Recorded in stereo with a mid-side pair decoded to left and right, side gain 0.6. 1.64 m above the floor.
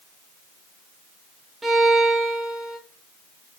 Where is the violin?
20° right, 0.7 m.